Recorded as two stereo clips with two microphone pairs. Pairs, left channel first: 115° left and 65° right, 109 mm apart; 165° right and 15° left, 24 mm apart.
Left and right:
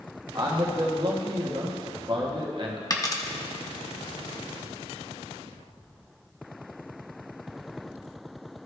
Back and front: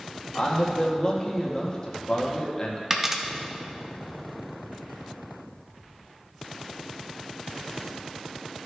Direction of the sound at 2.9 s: 85° left.